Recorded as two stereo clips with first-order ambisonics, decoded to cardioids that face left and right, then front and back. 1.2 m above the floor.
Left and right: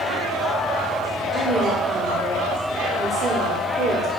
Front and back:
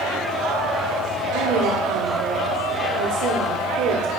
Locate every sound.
1.3 s a woman speaking: 165° right, 3 m